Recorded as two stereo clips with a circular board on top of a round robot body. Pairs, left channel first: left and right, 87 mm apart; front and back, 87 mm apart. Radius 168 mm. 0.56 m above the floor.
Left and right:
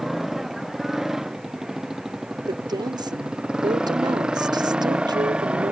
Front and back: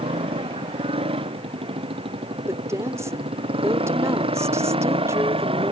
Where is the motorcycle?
175° right; by 5.7 s 170° right.